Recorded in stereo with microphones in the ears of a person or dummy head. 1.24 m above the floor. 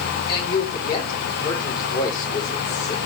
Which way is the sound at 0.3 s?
20° left (ahead or behind).